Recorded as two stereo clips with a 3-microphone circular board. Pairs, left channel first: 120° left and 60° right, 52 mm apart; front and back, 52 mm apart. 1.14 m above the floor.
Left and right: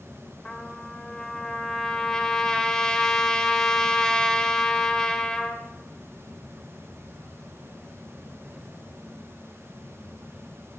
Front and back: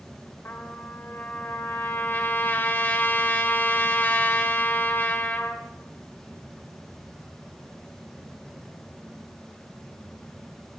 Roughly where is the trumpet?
Ahead left.